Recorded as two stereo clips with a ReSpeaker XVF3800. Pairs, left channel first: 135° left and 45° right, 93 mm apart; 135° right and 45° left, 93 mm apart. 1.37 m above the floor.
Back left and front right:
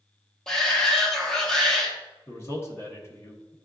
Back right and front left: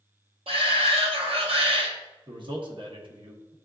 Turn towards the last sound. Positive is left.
turn(degrees=75)